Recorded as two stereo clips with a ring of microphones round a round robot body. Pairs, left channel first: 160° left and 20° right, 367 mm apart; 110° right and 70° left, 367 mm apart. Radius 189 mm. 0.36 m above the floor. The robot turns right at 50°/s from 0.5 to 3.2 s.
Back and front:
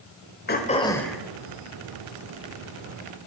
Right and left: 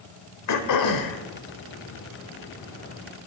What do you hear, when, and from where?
0.5 s throat clearing: 145° right, 1.2 m; by 1.2 s 110° right, 1.2 m